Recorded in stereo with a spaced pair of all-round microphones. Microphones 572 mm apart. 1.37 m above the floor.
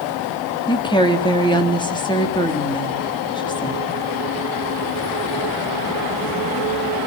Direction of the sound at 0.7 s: 10° left (ahead or behind).